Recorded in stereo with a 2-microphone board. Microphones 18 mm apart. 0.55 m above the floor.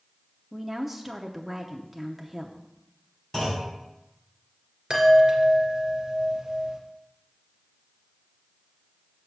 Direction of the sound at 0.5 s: 15° right (ahead or behind).